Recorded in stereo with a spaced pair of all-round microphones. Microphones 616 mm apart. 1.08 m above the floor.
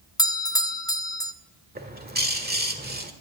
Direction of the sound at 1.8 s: 15° right (ahead or behind).